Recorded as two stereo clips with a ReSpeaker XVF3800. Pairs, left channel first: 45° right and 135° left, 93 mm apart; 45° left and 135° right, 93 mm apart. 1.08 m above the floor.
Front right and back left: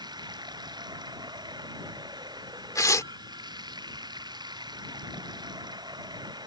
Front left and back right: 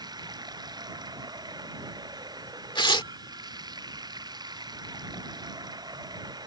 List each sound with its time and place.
0.0 s running water: straight behind
2.8 s tearing paper: 10° left